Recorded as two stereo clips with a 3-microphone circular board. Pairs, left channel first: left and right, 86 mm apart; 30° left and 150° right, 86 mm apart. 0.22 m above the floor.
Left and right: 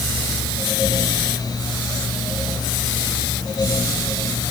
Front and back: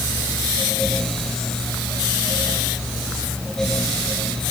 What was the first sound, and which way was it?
Only background noise.